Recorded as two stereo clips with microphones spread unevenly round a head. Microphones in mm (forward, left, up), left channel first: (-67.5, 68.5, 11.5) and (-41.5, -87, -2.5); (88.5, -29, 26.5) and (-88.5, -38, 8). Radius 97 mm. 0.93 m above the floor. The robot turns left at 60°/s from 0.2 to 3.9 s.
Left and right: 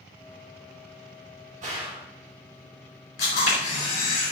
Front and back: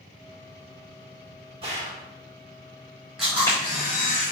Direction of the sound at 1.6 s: 120° right.